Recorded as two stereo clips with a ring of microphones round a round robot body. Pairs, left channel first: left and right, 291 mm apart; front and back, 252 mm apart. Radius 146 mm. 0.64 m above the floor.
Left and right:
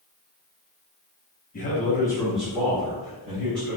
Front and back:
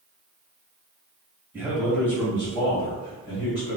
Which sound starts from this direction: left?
A man speaking, at 1.5 s.